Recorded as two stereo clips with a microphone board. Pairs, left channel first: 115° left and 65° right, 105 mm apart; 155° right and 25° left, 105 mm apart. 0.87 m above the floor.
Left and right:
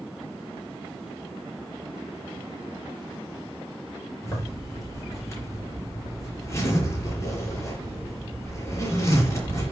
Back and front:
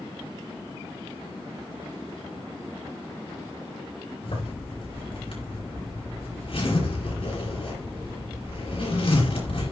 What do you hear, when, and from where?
4.2 s a zipper: 175° left, 5 m